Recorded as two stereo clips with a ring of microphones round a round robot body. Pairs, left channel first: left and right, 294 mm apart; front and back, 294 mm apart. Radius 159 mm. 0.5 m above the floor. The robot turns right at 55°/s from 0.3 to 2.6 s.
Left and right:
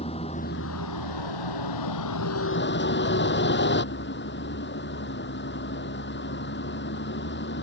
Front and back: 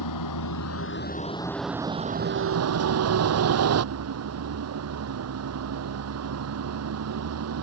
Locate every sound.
0.0 s a vehicle: 15° left; by 7.6 s 145° left